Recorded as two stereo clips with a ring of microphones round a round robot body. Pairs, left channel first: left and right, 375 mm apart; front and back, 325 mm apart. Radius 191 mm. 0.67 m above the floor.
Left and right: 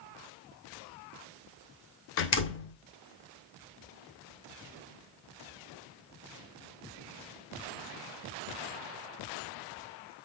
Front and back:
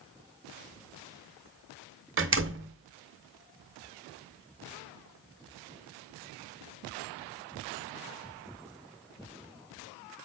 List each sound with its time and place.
2.2 s a door slam: 140° left, 0.9 m